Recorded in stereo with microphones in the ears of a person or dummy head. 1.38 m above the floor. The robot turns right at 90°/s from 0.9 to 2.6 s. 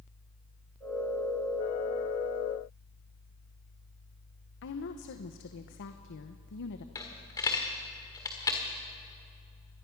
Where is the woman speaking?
60° left (ahead or behind), 0.8 m.